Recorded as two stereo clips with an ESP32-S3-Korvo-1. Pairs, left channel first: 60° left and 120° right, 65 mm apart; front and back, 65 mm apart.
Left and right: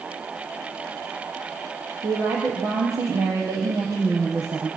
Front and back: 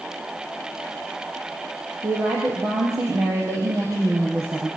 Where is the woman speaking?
145° right, 4.5 m.